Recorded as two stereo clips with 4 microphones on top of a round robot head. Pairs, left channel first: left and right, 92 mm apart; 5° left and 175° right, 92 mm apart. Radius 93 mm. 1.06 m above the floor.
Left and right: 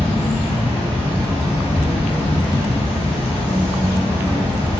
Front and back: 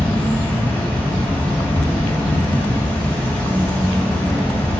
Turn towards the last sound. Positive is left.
turn(degrees=75)